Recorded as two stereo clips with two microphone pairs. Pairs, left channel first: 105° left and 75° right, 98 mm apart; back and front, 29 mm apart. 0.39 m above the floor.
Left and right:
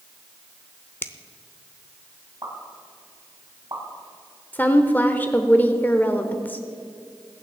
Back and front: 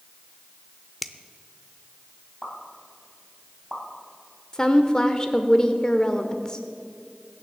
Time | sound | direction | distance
1.0 | a finger snap | 105° left | 0.6 m
2.4 | a pop | 115° right | 3 m
4.5 | a woman speaking | 155° left | 0.9 m